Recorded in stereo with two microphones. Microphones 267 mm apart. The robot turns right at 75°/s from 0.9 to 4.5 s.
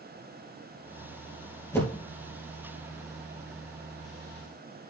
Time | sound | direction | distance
1.7 | a whoosh | 10° left (ahead or behind) | 3.5 m